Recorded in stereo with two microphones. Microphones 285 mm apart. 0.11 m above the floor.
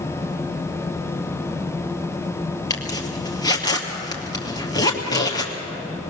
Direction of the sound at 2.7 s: 15° left (ahead or behind).